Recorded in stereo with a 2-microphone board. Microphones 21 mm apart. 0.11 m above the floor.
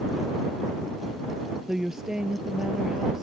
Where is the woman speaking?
25° right (ahead or behind).